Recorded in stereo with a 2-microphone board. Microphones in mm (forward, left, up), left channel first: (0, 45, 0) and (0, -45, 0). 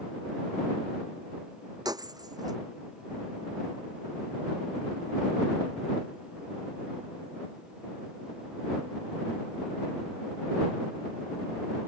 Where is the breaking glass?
45° right (ahead or behind).